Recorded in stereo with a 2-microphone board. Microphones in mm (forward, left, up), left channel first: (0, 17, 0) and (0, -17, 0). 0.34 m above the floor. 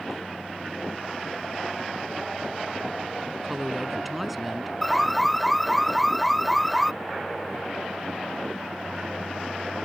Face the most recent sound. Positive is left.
turn(degrees=0)  # may be behind; listen again after turning